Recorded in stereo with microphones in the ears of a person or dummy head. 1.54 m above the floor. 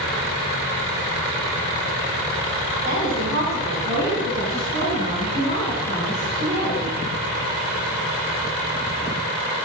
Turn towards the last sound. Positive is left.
turn(degrees=-20)  # may be behind; listen again after turning